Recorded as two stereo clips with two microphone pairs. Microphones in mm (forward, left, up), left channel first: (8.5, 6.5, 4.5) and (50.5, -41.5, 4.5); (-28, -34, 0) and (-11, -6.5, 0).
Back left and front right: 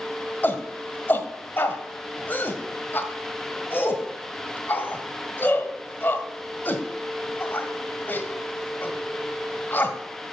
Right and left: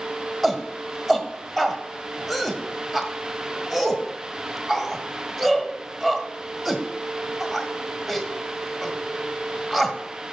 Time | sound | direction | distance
0.4 | a shout | 150° left | 1.3 m